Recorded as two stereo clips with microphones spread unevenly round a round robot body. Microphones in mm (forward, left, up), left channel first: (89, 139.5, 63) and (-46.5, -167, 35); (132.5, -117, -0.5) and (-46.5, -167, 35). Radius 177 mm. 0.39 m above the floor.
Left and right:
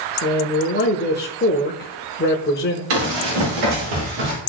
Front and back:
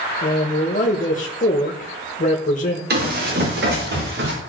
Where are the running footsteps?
135° right, 5.5 m; by 4.3 s 150° right, 6 m.